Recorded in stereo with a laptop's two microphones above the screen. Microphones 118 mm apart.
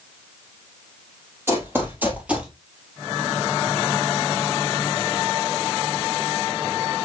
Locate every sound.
1.5 s running footsteps: 20° right (ahead or behind), 1.4 m; by 2.5 s 10° right (ahead or behind), 1.0 m